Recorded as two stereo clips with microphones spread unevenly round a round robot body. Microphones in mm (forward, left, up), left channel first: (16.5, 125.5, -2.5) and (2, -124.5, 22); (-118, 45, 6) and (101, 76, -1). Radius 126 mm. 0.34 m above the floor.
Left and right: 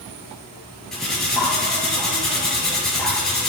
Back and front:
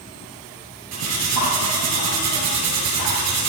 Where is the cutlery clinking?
Straight ahead, 4 m.